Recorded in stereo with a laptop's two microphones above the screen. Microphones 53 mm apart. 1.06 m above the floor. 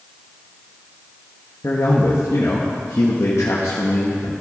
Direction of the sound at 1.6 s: 75° left (ahead or behind).